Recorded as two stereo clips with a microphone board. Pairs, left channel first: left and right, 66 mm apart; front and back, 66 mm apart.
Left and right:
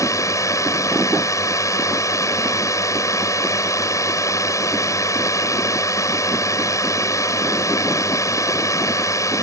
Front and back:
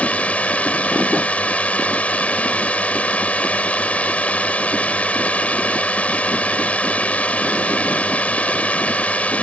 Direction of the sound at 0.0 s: 65° left.